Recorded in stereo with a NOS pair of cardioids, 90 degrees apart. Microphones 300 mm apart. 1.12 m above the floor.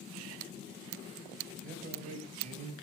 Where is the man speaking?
30° right, 7 m; by 2.7 s 25° right, 8 m.